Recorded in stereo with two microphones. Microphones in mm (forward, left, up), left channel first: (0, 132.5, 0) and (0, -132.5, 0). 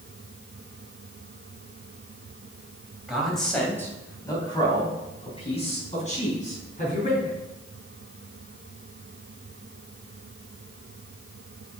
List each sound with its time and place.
3.1 s a man speaking: centre (ahead or behind), 3 m; by 7.4 s 35° left (ahead or behind), 6 m